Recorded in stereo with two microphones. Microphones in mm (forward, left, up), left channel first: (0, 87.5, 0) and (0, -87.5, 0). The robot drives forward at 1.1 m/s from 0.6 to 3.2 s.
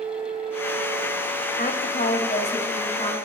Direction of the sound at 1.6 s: 55° left (ahead or behind).